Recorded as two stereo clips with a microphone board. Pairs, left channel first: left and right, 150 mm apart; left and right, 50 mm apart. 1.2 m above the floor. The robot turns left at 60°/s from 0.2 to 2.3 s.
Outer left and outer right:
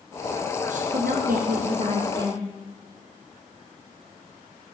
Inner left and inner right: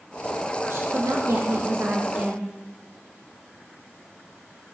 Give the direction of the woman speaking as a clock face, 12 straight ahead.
2 o'clock.